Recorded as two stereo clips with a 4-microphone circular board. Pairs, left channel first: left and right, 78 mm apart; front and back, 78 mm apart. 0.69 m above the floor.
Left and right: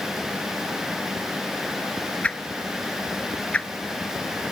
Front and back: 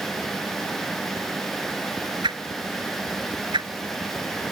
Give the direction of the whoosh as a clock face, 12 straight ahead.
7 o'clock.